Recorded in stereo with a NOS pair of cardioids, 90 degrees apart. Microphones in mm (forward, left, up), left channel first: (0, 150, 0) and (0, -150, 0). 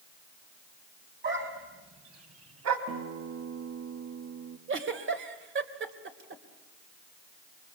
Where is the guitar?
55° right, 1.8 m.